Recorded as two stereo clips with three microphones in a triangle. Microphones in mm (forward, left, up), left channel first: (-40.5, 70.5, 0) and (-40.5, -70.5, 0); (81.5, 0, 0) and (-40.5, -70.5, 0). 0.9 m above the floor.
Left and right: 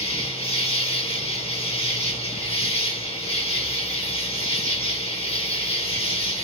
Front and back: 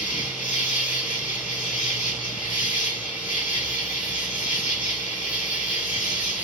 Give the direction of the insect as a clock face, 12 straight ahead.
11 o'clock.